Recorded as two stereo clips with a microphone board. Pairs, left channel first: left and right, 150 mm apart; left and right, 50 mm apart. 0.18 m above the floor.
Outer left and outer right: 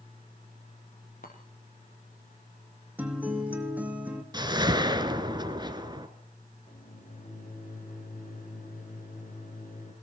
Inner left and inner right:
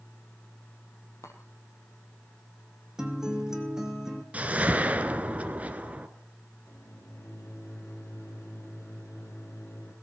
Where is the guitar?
10° right (ahead or behind), 2.5 m.